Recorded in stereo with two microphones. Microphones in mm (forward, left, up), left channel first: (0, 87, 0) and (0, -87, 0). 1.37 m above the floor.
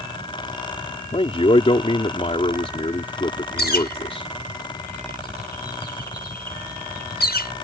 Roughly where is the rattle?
I don't hear a rattle.